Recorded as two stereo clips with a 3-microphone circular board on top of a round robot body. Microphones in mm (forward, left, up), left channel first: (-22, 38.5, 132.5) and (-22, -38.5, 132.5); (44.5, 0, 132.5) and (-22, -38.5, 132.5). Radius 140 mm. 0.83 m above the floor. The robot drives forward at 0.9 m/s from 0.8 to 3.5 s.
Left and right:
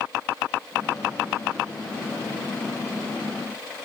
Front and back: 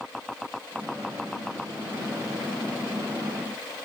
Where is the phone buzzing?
I don't hear a phone buzzing.